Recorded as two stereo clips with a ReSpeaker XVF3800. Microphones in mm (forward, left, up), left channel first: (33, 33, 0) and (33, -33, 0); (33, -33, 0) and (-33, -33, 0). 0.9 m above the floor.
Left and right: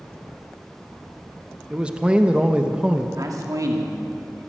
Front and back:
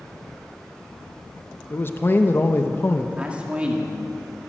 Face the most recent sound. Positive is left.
turn(degrees=-110)